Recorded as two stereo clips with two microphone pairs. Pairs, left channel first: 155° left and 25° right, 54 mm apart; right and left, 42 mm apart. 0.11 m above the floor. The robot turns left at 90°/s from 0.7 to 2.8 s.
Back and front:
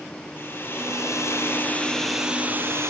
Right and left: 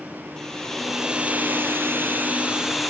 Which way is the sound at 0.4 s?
170° right.